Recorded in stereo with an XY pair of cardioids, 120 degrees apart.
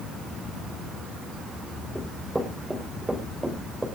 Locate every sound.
1.9 s running footsteps: 10° right, 4.5 m